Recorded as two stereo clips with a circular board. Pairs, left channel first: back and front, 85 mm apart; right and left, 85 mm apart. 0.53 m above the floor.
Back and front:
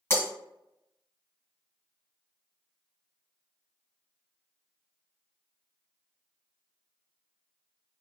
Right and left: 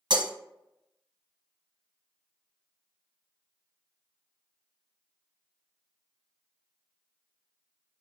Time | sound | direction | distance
0.1 | breaking glass | 115° left | 1.7 m